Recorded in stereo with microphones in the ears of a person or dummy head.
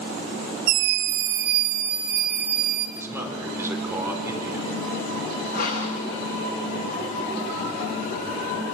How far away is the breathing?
About 8.5 m.